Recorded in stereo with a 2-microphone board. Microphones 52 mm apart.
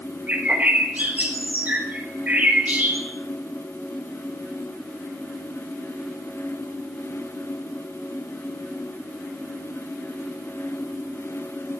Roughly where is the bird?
Right.